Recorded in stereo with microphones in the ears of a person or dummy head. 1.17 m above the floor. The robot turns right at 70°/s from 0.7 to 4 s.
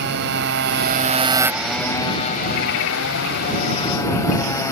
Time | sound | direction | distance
0.0 | a motorcycle | 65° right | ?